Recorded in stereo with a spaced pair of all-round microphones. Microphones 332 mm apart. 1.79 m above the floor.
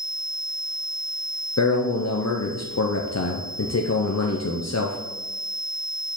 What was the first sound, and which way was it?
A man speaking, 50° left (ahead or behind).